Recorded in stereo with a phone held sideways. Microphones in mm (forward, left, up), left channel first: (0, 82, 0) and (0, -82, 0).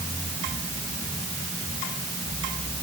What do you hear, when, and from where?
Only background noise.